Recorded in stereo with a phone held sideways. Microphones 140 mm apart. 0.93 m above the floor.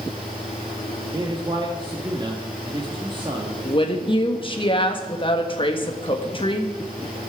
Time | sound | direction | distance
0.0 | a fan | 75° right (ahead or behind) | 8.5 m
1.1 | a man speaking | 35° right (ahead or behind) | 1.6 m
3.6 | a woman speaking | 35° left (ahead or behind) | 1.4 m